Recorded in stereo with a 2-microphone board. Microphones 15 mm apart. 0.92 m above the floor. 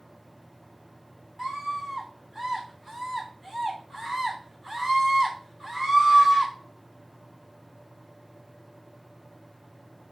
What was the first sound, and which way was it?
A scream, 15° right (ahead or behind).